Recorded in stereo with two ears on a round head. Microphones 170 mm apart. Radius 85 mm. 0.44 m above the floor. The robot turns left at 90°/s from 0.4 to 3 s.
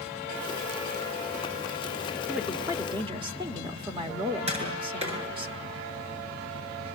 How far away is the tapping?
About 8 m.